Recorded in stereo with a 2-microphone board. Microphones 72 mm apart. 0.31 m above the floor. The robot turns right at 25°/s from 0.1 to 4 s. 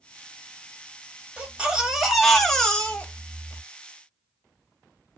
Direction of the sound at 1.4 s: 20° right.